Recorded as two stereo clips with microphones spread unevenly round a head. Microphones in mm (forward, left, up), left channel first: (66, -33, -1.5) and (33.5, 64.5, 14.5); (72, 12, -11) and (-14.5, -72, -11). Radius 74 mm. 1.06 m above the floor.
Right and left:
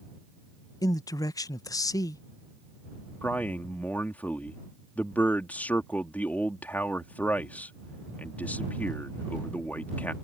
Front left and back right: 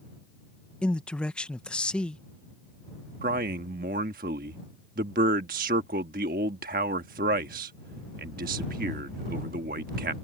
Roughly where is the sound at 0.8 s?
Ahead right.